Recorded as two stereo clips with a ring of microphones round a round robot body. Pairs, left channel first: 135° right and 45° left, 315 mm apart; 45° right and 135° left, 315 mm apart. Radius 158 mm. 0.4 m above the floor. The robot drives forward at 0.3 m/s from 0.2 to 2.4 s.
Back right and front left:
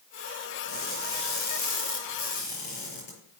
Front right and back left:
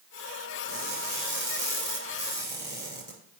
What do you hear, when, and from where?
0.7 s crushing: 140° right, 6.5 m; by 3.1 s 145° right, 6.5 m